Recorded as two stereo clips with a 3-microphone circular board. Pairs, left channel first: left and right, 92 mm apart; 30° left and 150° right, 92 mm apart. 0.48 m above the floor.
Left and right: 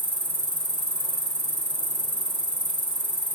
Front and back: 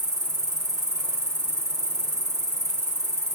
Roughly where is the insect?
Right.